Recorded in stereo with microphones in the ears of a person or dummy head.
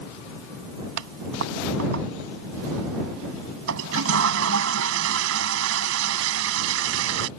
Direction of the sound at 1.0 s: 75° right (ahead or behind).